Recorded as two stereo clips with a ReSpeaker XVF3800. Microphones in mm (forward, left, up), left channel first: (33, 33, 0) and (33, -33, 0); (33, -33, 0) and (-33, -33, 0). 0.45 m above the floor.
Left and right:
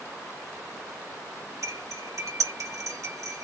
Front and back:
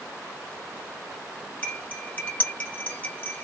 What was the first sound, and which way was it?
Cutlery clinking, 60° right.